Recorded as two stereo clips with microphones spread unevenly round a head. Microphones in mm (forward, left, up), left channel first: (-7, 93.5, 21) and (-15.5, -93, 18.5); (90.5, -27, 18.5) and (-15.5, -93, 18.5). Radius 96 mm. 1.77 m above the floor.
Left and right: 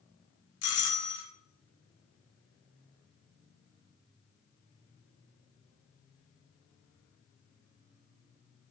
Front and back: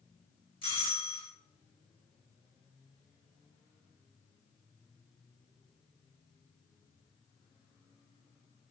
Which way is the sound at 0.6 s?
95° left.